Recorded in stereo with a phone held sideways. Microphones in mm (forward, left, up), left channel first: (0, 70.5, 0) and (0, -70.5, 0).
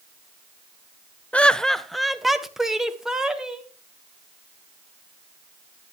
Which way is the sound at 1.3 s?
10° left (ahead or behind).